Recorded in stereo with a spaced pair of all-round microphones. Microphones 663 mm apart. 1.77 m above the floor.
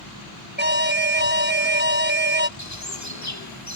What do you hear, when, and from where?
0.6 s an alarm: 15° right (ahead or behind)
2.6 s a bird: 25° left (ahead or behind)